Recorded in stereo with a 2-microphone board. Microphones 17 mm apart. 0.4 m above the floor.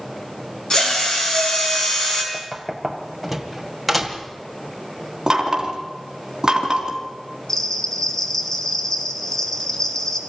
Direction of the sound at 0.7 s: 45° left (ahead or behind).